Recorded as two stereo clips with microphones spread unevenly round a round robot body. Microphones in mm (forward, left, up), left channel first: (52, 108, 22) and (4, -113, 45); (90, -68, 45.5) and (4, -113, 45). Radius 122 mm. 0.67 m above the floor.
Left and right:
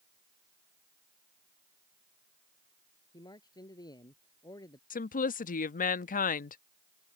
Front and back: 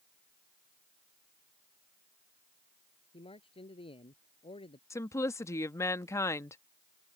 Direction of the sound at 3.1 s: 5° left.